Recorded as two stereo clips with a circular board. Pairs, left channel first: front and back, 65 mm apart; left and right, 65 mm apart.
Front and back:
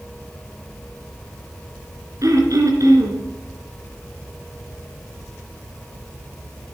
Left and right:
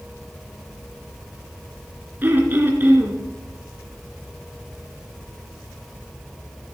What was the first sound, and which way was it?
Throat clearing, 150° right.